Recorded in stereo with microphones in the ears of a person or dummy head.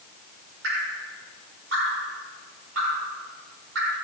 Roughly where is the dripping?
Right.